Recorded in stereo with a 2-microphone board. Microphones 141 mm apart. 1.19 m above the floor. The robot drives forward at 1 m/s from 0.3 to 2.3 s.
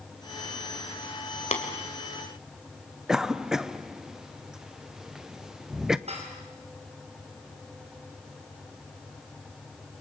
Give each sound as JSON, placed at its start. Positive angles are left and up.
{"t": 1.5, "sound": "tapping", "side_deg": 50, "distance_m": 2.5}
{"t": 3.1, "sound": "a cough", "side_deg": -5, "distance_m": 0.7}
{"t": 6.1, "sound": "dishes clattering", "side_deg": -50, "distance_m": 4.5}